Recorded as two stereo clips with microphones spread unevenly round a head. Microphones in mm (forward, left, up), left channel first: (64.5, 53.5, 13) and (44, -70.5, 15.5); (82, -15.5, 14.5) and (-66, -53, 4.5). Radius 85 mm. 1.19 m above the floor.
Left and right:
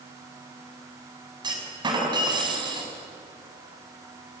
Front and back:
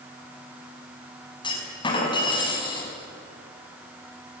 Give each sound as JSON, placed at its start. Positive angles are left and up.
{"t": 1.4, "sound": "a clunk", "azimuth_deg": -45, "distance_m": 6.0}